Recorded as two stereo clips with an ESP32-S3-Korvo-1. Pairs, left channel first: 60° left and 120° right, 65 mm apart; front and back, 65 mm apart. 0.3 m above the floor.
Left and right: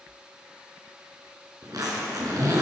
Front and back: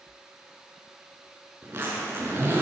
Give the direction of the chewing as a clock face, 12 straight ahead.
I don't hear chewing.